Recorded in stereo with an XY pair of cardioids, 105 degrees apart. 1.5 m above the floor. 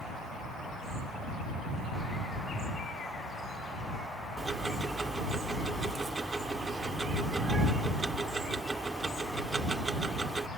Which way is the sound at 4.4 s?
30° right.